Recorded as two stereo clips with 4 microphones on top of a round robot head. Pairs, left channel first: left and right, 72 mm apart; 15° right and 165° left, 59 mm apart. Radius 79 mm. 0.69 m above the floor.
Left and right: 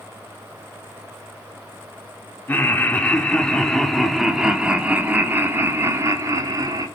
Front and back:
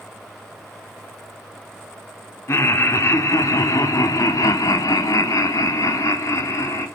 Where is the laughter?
25° left, 2.0 m; by 6.9 s 50° right, 1.9 m.